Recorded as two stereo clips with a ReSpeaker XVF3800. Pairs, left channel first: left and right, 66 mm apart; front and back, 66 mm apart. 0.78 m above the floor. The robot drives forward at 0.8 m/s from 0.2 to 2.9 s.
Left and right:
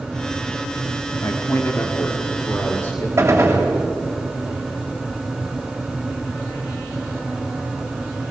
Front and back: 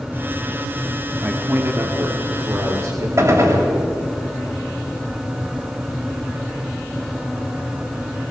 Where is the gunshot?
140° right, 3 m.